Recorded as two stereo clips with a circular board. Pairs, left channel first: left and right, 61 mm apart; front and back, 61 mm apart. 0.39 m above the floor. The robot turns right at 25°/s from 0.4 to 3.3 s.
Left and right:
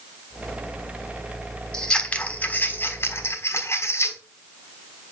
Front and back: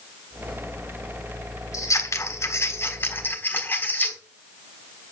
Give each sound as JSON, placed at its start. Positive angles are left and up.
{"t": 1.7, "sound": "scissors", "azimuth_deg": 15, "distance_m": 3.5}